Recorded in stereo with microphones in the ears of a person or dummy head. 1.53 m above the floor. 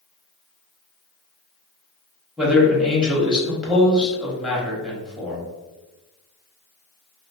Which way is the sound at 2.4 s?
5° right (ahead or behind).